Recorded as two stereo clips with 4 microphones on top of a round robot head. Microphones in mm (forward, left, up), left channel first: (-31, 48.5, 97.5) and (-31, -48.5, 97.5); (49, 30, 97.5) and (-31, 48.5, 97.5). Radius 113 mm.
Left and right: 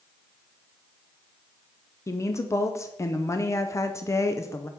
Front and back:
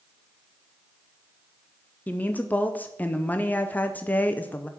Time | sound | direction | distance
2.1 | a woman speaking | 45° left | 0.6 m